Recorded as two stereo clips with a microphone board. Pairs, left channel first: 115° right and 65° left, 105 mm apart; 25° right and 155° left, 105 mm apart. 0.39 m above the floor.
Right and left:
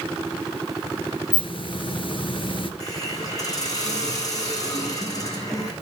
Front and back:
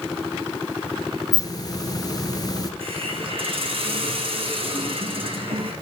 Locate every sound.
1.3 s a hiss: 75° right, 1.9 m
2.8 s a hiss: 170° right, 4.5 m